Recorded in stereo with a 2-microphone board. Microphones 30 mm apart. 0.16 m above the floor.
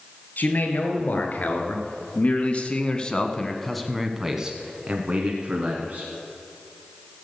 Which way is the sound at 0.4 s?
65° left (ahead or behind).